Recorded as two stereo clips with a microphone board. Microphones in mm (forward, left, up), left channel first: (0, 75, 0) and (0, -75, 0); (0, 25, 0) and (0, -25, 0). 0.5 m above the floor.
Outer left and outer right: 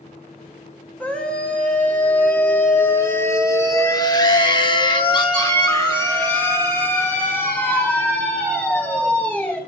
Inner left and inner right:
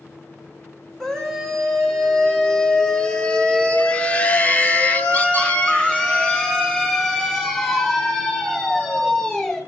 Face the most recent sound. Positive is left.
turn(degrees=10)  # may be behind; listen again after turning